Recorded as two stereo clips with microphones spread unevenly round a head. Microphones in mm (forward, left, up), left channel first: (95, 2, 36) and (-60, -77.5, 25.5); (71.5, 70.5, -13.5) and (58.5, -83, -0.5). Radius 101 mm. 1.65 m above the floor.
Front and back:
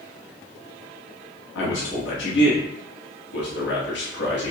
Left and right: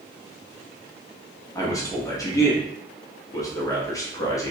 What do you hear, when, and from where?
1.6 s a man speaking: 15° left, 1.0 m